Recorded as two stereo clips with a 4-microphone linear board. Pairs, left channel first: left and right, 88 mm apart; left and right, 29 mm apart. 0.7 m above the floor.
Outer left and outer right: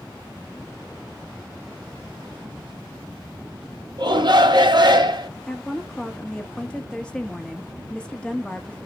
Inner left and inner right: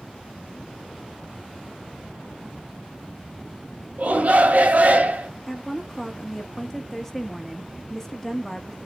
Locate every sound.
4.0 s a shout: 60° right (ahead or behind), 1.2 m
5.5 s a woman speaking: 10° left (ahead or behind), 0.9 m